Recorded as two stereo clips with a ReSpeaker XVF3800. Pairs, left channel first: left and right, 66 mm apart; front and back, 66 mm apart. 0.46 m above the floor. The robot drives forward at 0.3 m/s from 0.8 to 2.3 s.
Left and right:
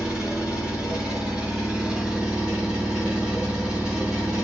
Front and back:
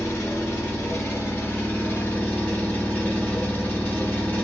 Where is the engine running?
25° right, 1.4 m; by 4.5 s 40° right, 1.2 m.